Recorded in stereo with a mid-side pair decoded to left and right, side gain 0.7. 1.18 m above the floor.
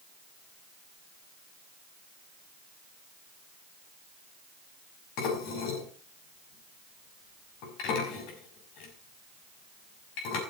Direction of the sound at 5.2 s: 65° left.